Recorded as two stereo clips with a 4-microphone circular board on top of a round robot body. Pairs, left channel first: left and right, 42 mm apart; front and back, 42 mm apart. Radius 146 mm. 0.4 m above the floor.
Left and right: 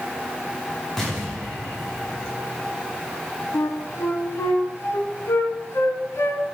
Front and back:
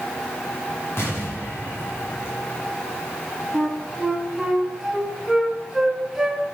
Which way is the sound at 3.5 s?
95° left.